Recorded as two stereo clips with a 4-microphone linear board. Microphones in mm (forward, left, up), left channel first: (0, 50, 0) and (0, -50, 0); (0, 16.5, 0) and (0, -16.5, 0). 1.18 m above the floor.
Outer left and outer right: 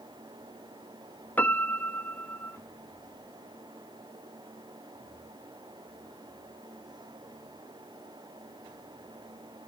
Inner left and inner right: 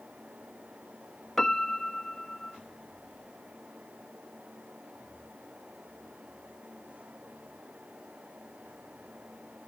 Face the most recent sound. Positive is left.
turn(degrees=15)  # may be behind; listen again after turning